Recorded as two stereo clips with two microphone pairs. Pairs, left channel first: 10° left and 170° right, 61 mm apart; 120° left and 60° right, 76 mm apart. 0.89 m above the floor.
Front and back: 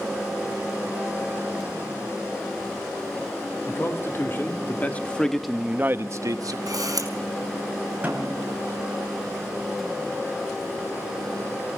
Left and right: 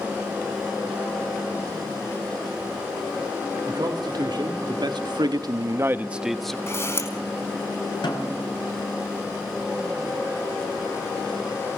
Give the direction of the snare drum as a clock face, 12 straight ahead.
8 o'clock.